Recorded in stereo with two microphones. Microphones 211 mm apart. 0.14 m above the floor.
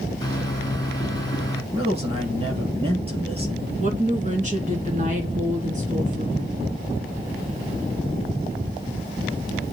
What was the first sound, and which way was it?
A microwave, 20° left (ahead or behind).